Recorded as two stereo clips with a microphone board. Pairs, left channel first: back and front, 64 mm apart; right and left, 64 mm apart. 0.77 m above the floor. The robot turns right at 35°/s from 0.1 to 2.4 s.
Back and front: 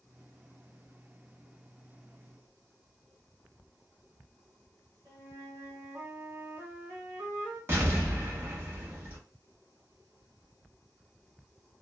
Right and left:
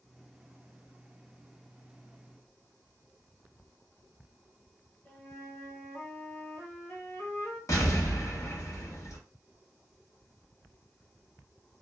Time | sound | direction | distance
5.0 | a flute | 35° right | 1.5 m
7.7 | an explosion | 55° right | 1.1 m